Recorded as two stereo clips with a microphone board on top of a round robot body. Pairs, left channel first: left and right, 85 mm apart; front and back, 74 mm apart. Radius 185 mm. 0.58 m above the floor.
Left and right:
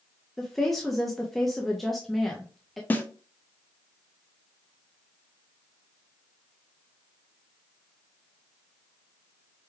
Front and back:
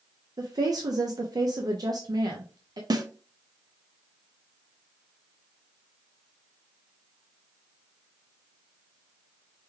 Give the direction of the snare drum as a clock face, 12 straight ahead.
7 o'clock.